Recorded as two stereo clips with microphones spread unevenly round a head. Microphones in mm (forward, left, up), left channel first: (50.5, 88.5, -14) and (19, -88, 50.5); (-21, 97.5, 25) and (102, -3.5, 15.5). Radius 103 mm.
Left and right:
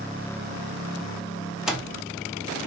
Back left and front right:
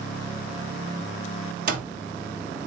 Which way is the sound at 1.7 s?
35° right.